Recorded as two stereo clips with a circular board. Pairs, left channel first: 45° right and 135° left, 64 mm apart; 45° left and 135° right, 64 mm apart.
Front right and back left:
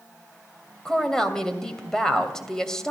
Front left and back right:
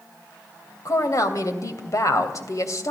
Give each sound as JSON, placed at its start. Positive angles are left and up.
{"t": 0.8, "sound": "a woman speaking", "azimuth_deg": 35, "distance_m": 2.5}